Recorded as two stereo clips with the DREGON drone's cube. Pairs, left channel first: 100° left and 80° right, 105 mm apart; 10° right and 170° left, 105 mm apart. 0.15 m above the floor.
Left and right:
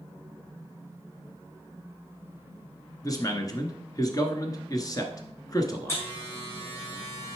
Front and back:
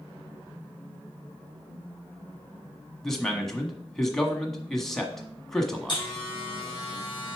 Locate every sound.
3.0 s a man speaking: 75° left, 1.3 m
5.9 s a buzzer: 35° left, 4.5 m